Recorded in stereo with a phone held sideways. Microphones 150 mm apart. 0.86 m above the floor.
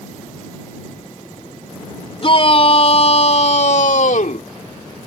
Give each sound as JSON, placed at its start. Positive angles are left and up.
{"t": 2.2, "sound": "a shout", "side_deg": 40}